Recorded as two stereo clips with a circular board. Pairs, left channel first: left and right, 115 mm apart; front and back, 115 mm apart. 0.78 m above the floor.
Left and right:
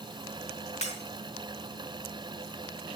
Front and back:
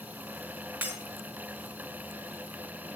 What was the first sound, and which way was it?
Breaking glass, 105° left.